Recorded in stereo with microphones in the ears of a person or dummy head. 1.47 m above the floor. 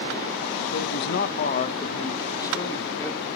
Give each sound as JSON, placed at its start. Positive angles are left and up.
{"t": 0.7, "sound": "a man speaking", "side_deg": 65, "distance_m": 1.0}